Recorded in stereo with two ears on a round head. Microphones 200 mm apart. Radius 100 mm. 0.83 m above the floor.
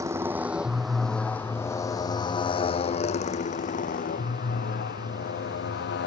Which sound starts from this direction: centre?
A motorcycle, at 0.0 s.